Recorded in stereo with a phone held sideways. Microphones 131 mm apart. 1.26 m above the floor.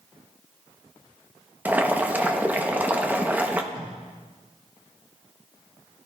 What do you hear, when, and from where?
1.6 s boiling: 15° right (ahead or behind), 0.9 m
3.7 s tape being pulled: 40° right (ahead or behind), 6.5 m